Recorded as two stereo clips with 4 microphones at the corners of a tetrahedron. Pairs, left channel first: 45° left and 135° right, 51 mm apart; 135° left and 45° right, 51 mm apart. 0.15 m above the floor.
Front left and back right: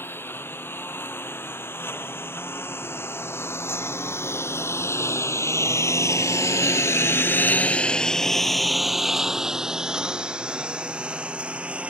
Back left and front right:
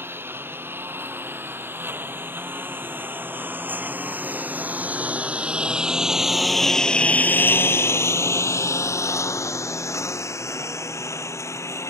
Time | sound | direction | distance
0.0 | a lawn mower | straight ahead | ?